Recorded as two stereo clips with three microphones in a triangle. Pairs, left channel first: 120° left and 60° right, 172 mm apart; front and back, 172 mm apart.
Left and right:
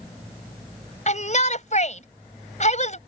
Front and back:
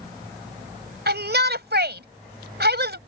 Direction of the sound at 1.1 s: 165° left.